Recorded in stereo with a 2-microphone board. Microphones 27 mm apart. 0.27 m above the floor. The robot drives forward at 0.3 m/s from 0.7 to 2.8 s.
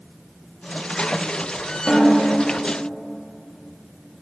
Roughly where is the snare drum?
Centre.